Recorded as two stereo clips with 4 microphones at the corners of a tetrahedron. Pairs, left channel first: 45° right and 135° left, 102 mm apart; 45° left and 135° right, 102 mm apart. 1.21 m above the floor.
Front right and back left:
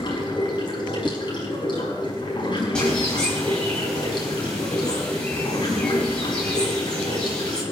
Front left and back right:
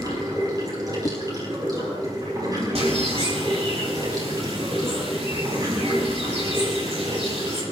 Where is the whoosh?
70° left, 0.6 m.